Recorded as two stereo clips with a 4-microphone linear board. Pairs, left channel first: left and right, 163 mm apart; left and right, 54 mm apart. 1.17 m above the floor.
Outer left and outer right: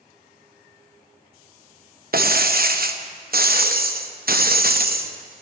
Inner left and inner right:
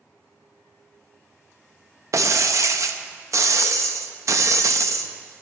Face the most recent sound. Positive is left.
turn(degrees=-65)  # may be behind; listen again after turning